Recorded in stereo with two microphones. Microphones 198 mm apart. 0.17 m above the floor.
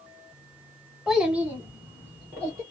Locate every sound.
1.1 s a child speaking: centre (ahead or behind), 0.7 m; by 2.6 s 15° right (ahead or behind), 1.4 m